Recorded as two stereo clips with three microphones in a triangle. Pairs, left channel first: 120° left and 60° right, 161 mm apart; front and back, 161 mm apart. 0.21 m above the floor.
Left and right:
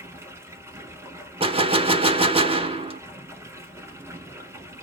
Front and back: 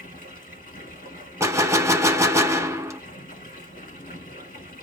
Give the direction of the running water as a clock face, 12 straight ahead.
12 o'clock.